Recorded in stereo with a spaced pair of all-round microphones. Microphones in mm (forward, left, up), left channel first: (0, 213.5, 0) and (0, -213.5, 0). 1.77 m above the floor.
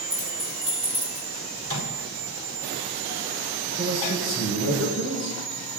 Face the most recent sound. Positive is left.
turn(degrees=-35)  # may be behind; listen again after turning